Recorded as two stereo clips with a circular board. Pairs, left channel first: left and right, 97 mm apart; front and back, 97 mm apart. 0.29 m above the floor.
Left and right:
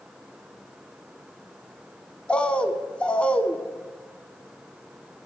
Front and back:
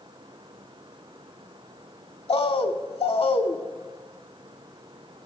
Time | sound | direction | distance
2.3 | a bird | 15° left | 0.6 m